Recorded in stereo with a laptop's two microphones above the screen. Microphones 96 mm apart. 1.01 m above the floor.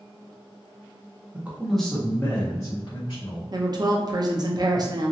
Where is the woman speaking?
45° right (ahead or behind), 0.5 m.